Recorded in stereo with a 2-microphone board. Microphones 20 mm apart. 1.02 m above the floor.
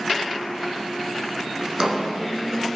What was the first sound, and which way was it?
A drawer, 30° right (ahead or behind).